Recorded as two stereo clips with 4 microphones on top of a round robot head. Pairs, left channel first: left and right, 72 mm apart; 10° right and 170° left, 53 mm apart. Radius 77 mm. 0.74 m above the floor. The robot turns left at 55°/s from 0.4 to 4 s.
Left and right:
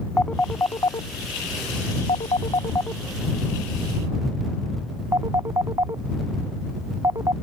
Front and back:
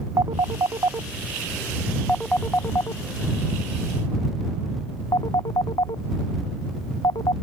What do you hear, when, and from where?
0.2 s a phone ringing: 165° left; by 7.3 s 35° right